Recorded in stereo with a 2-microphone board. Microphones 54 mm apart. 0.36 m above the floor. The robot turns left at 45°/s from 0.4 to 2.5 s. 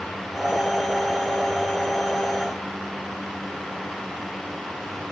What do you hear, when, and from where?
Only background noise.